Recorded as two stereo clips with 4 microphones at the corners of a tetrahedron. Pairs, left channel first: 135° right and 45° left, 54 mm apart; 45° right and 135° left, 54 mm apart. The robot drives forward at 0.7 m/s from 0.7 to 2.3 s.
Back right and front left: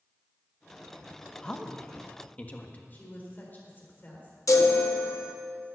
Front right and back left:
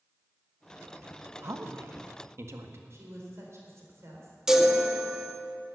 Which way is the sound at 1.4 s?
150° left.